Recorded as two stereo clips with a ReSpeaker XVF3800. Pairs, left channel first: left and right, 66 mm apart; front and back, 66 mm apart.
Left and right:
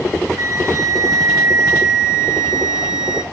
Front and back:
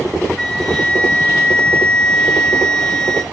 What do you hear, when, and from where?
0.4 s a flute: 80° right, 3 m